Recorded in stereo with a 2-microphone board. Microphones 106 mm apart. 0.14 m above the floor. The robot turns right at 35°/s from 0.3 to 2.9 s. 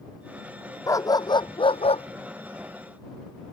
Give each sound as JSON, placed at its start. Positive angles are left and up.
{"t": 0.9, "sound": "a dog barking", "side_deg": 30}